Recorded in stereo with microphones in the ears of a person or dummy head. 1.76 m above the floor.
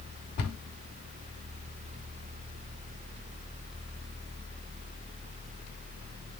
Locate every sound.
0.4 s a cupboard door: 55° left (ahead or behind), 2.5 m